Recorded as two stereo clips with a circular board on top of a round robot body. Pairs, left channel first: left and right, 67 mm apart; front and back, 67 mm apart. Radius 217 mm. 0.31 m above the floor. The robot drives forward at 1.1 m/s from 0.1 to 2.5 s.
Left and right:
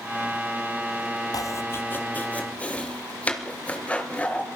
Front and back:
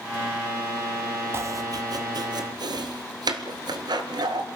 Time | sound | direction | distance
1.3 | chopping | 125° left | 0.6 m